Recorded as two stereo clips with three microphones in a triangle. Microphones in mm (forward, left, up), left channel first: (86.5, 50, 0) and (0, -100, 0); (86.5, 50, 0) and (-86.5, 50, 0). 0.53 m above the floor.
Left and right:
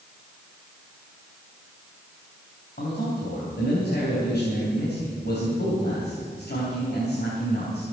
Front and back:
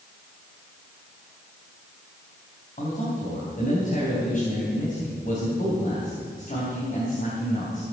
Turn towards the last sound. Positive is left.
turn(degrees=40)